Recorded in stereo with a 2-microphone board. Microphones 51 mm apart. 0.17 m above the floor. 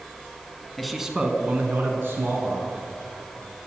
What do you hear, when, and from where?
0.8 s a man speaking: 5° left (ahead or behind), 1.2 m; by 2.8 s 60° right (ahead or behind), 2.5 m